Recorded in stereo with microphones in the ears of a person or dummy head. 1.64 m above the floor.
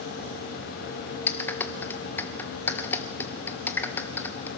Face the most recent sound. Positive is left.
turn(degrees=10)  # may be behind; listen again after turning